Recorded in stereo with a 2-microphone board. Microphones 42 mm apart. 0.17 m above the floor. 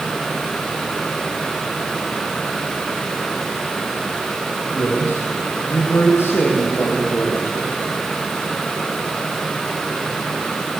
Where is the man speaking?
80° left, 7.5 m; by 7.7 s 70° left (ahead or behind), 8 m.